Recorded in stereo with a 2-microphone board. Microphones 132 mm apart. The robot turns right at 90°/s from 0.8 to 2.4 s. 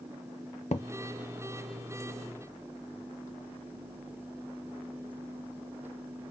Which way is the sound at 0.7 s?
55° left (ahead or behind).